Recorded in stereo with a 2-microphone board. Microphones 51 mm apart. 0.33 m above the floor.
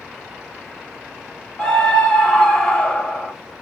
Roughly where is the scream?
Centre.